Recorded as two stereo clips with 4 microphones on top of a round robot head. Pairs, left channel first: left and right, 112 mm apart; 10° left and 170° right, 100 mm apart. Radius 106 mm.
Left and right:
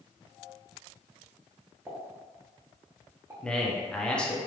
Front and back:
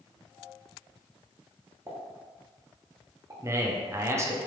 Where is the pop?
140° right, 1.1 m.